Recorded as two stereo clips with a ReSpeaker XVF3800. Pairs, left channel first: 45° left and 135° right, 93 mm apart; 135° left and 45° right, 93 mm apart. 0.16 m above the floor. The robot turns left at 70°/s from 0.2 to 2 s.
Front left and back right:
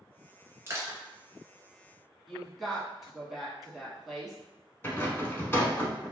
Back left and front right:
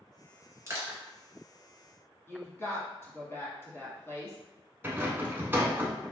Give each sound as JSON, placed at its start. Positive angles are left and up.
{"t": 0.7, "sound": "crushing", "azimuth_deg": -85, "distance_m": 1.4}
{"t": 2.3, "sound": "a woman speaking", "azimuth_deg": 135, "distance_m": 1.1}
{"t": 4.8, "sound": "a rattle", "azimuth_deg": 0, "distance_m": 0.7}